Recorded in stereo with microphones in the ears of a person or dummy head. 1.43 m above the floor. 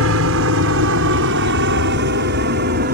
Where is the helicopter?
70° right (ahead or behind); by 3.0 s 50° right (ahead or behind).